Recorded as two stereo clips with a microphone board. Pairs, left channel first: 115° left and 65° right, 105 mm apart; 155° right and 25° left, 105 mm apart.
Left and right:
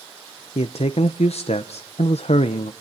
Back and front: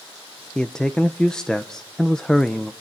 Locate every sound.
0.6 s a man speaking: 120° left, 0.8 m